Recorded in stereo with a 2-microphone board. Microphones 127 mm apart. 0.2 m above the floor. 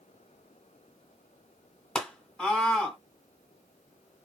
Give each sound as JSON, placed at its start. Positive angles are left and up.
{"t": 1.9, "sound": "a scream", "side_deg": 5, "distance_m": 1.4}